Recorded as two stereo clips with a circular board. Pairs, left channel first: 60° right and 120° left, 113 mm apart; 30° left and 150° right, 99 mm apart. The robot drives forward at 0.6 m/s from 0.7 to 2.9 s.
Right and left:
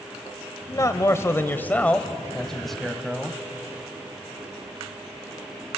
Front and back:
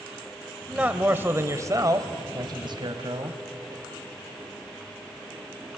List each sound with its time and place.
0.7 s a man speaking: 80° right, 1.3 m; by 3.4 s 150° right, 1.8 m